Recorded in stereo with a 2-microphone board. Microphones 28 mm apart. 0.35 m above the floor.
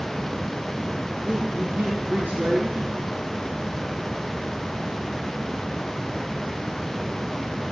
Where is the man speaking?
75° right (ahead or behind), 6 m.